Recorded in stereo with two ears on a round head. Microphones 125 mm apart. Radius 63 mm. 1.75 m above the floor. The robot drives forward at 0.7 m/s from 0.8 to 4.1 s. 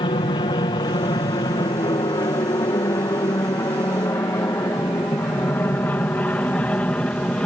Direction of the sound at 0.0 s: 35° left (ahead or behind).